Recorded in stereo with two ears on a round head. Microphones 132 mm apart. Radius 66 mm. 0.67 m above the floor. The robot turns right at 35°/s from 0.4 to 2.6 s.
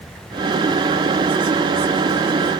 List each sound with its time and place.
Only background noise.